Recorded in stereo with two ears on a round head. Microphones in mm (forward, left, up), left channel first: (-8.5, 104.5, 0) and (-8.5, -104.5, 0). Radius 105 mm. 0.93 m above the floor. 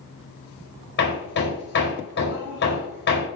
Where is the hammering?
50° left (ahead or behind), 4.5 m.